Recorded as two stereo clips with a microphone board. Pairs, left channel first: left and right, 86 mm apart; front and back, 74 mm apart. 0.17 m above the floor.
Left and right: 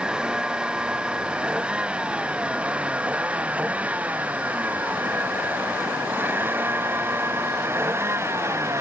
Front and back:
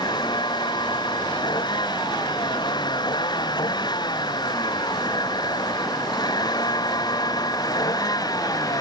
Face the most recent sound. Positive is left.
turn(degrees=-30)